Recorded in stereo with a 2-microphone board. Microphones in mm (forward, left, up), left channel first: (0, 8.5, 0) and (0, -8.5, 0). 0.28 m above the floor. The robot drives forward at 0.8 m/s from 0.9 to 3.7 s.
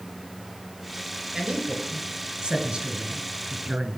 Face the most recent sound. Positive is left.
turn(degrees=-65)  # may be behind; listen again after turning